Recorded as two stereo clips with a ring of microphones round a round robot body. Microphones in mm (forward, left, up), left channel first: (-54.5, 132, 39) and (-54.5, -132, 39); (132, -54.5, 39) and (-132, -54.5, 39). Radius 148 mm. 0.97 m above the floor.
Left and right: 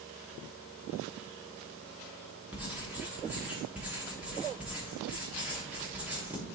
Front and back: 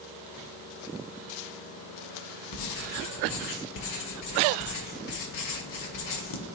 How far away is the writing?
About 0.9 m.